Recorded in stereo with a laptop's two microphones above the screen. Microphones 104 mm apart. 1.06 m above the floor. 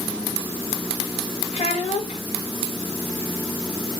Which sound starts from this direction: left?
A child speaking, at 1.5 s.